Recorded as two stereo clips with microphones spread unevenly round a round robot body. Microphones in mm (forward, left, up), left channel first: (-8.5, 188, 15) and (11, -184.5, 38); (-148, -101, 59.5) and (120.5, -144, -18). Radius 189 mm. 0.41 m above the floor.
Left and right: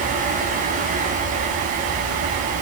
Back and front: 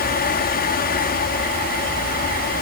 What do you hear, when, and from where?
Only background noise.